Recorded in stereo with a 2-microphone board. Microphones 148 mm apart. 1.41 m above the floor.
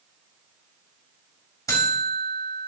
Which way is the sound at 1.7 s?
20° left (ahead or behind).